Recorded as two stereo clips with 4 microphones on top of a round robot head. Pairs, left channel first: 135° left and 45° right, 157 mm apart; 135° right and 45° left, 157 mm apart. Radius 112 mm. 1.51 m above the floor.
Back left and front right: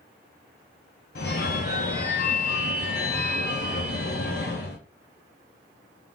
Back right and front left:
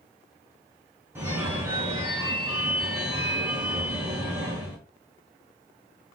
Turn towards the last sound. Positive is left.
turn(degrees=115)